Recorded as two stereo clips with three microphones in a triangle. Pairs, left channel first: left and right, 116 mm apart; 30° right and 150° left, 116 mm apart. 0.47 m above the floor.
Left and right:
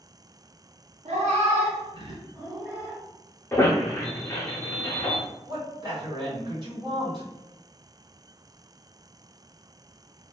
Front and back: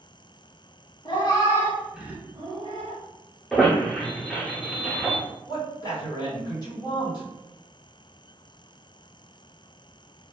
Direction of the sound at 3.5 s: 50° left.